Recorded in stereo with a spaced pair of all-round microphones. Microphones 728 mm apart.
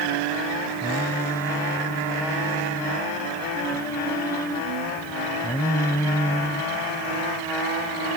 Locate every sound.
0.8 s singing: 5° left (ahead or behind)